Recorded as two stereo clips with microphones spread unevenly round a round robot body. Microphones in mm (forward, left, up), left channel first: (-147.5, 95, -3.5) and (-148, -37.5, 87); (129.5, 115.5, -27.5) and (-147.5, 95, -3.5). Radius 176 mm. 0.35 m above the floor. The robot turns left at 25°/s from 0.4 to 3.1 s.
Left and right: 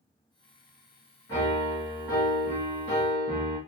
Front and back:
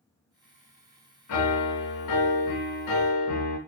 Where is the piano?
25° left, 1.7 m; by 3.6 s 20° right, 1.7 m.